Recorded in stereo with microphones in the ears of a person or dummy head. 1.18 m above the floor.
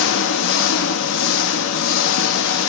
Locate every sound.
0.0 s an engine running: 65° left (ahead or behind), 2.0 m